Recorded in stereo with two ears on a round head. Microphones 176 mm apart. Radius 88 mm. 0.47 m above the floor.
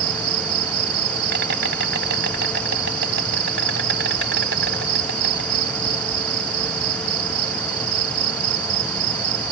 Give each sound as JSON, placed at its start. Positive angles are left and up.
{"t": 0.0, "sound": "an insect", "side_deg": -55}